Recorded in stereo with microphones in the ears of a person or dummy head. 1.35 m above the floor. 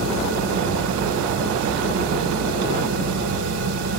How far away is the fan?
About 2.5 m.